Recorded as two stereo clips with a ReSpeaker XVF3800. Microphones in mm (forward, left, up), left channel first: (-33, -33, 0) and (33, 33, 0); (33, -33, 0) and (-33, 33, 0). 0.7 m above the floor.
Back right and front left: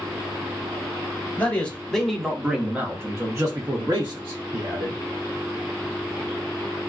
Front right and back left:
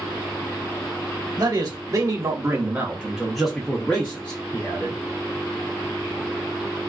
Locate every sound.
1.4 s a man speaking: 155° left, 1.1 m; by 5.0 s 20° left, 1.5 m